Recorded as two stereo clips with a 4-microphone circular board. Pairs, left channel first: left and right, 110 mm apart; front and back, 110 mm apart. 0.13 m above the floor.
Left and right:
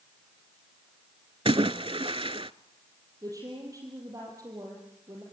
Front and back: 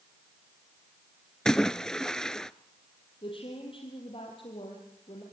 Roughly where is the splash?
Right.